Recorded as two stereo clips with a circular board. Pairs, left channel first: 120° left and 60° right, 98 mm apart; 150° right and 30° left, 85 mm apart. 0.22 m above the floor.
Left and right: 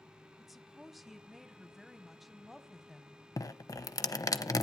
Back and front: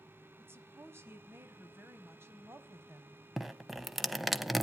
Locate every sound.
0.4 s a woman speaking: 25° left, 1.3 m
3.4 s dripping: 115° left, 0.8 m